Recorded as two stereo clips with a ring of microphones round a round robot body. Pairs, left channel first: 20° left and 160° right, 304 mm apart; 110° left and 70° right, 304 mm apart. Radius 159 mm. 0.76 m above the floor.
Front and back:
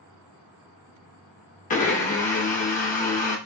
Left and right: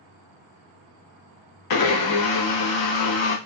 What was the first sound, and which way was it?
A blender, 90° left.